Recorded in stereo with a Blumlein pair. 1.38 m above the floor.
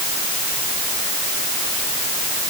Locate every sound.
Only background noise.